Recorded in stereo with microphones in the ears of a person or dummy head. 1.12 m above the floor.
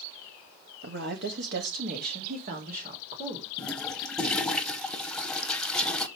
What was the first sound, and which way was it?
A woman speaking, 65° right (ahead or behind).